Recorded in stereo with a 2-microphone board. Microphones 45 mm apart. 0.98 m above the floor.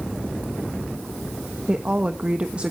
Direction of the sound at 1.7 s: 30° right (ahead or behind).